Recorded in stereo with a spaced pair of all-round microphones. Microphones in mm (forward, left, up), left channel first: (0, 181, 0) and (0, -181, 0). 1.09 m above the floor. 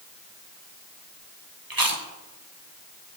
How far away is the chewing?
About 1.7 m.